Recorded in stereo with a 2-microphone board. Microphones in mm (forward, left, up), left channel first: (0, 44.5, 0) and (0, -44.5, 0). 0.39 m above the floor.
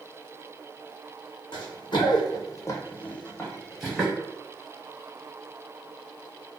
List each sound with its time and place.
1.5 s running footsteps: 60° left (ahead or behind), 0.9 m; by 4.1 s 5° right (ahead or behind), 1.1 m